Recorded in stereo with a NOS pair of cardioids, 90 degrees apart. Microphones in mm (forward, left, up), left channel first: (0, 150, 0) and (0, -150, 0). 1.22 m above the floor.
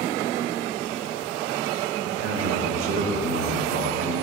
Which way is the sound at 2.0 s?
60° right.